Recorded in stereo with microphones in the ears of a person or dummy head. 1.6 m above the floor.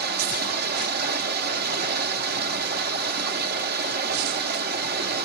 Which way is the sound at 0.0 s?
50° right (ahead or behind).